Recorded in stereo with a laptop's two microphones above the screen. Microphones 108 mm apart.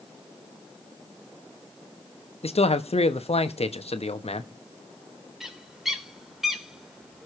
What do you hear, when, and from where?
2.4 s a man speaking: 75° left (ahead or behind), 1.1 m
5.4 s a bird: 5° right (ahead or behind), 3 m